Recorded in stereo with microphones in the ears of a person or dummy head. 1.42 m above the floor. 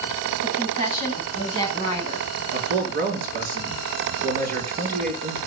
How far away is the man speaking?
About 4.5 m.